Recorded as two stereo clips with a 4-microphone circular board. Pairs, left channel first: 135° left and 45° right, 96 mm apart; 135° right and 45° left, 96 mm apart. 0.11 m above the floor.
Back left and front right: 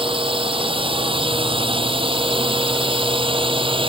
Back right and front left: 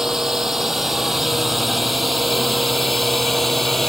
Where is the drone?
40° right; by 3.9 s 45° right.